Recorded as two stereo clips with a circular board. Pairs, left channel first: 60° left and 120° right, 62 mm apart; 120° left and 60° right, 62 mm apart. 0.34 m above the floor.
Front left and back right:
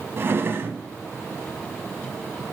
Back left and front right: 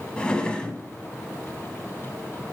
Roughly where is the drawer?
Behind.